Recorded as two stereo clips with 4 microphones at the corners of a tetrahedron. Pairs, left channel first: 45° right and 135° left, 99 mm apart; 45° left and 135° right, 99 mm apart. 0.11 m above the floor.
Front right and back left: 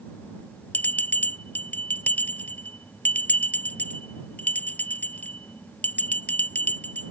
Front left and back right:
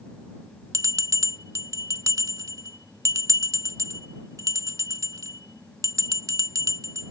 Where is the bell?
105° right.